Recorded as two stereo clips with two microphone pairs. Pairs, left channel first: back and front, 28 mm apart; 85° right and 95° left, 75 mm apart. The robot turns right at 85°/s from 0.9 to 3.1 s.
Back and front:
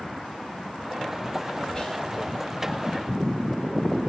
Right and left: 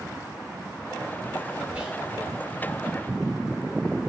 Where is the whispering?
155° left, 1.2 m; by 2.0 s 175° left, 1.2 m.